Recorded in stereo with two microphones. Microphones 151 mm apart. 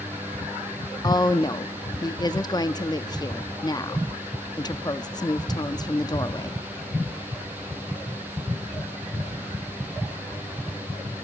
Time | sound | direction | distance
1.0 | a woman speaking | 25° left (ahead or behind) | 0.6 m